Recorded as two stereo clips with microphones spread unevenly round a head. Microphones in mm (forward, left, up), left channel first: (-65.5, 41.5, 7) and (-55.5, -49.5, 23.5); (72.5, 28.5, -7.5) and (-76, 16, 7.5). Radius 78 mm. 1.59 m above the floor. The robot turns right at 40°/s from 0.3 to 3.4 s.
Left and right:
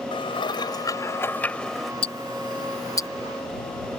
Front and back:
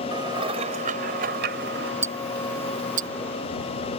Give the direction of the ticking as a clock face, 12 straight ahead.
8 o'clock.